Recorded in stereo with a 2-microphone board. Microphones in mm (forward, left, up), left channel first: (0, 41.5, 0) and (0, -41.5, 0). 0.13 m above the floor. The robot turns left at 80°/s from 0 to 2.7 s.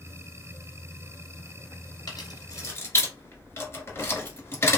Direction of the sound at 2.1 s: 50° left (ahead or behind).